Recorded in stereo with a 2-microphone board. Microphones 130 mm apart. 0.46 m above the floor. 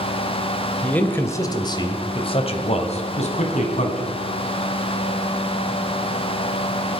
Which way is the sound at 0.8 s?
10° left (ahead or behind).